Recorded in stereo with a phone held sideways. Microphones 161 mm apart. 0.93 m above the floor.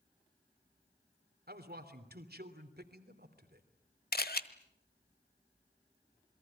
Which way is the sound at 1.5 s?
70° right (ahead or behind).